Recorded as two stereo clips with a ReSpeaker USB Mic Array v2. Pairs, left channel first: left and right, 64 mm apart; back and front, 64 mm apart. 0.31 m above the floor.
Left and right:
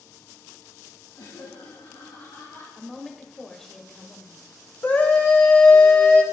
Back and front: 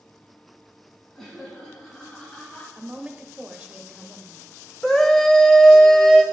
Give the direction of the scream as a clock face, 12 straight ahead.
8 o'clock.